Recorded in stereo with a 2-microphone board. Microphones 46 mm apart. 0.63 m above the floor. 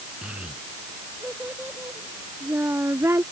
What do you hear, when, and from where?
0.2 s a child speaking: 20° right (ahead or behind); by 3.2 s 75° right (ahead or behind)